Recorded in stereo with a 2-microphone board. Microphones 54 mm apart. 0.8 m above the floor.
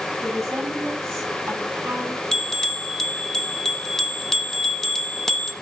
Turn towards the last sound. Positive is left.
turn(degrees=10)  # may be behind; listen again after turning